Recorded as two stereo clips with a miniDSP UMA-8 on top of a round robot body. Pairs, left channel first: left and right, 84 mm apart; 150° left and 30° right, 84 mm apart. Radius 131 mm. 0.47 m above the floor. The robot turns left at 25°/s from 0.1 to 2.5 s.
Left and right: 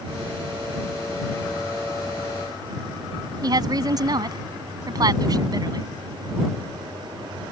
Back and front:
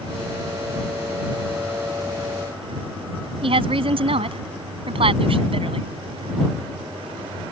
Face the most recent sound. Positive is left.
turn(degrees=-45)